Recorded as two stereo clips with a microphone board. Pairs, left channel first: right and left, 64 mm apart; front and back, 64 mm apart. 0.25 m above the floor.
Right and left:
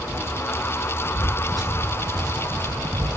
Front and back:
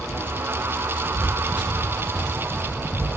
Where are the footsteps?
120° left, 1.5 m; by 3.1 s 100° left, 3 m.